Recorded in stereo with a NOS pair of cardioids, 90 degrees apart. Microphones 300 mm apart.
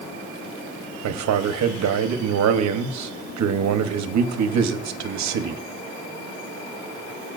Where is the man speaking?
65° right, 1.1 m.